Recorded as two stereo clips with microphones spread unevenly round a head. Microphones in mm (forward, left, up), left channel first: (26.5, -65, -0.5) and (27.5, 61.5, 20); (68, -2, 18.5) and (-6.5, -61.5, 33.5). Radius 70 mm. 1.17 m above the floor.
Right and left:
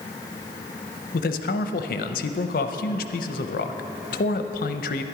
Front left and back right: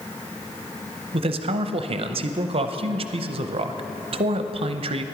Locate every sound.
1.1 s a man speaking: 115° right, 0.6 m